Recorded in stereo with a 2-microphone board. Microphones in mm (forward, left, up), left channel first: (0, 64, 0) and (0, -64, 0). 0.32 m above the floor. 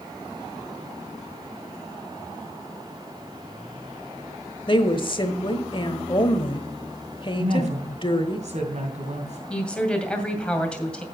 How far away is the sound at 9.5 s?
About 2 m.